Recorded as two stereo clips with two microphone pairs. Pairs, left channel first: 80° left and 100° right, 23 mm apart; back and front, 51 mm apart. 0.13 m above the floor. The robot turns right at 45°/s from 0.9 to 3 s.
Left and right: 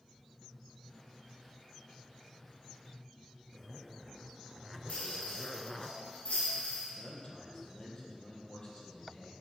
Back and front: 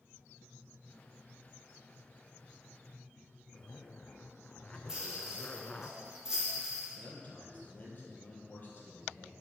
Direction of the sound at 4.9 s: 80° left.